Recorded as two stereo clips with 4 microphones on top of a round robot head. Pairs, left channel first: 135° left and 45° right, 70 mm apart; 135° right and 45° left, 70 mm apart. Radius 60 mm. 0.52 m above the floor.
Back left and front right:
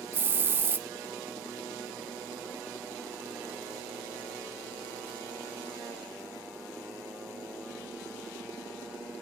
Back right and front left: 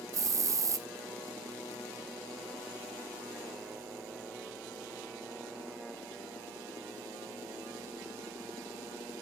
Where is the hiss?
15° left, 0.8 m.